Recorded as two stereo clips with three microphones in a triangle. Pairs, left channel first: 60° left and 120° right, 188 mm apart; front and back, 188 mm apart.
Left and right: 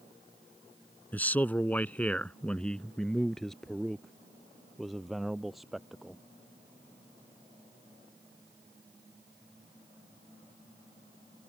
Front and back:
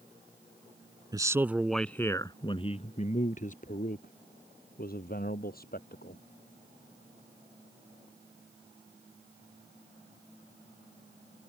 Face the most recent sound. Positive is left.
turn(degrees=-30)